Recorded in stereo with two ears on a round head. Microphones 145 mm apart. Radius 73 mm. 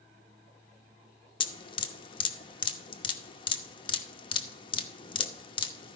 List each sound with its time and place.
1.4 s dripping: 30° left (ahead or behind), 0.9 m